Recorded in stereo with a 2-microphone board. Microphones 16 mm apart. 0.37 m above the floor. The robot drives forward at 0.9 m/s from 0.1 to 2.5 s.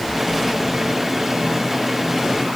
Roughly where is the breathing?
No breathing in this recording.